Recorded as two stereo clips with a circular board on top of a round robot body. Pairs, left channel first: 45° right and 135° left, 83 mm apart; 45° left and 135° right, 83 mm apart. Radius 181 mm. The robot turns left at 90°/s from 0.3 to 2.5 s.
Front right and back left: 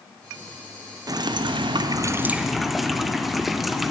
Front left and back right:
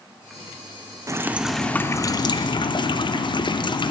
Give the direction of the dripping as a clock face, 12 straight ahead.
6 o'clock.